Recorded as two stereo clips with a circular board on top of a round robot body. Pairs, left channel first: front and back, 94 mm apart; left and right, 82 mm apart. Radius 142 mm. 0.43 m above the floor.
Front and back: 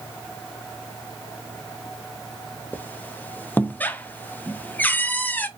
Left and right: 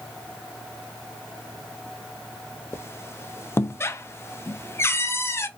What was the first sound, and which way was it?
A squeak, 55° left.